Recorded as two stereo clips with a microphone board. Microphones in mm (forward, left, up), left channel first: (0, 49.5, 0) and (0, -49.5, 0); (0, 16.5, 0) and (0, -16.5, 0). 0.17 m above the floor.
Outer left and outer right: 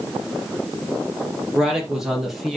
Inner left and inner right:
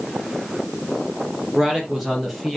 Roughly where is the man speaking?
Centre.